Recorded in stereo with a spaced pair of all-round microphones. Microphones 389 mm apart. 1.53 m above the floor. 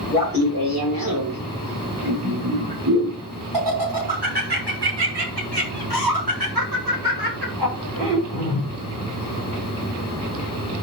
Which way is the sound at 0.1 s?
65° right (ahead or behind).